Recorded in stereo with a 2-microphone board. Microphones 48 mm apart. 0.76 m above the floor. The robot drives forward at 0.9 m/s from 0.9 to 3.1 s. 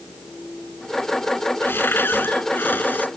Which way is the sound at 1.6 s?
50° left (ahead or behind).